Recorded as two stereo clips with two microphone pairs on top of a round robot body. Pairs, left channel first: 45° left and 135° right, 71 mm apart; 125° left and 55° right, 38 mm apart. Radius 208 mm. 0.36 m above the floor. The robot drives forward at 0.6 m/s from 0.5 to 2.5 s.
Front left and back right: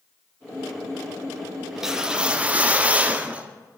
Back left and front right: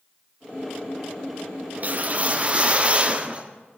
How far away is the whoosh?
About 1.6 m.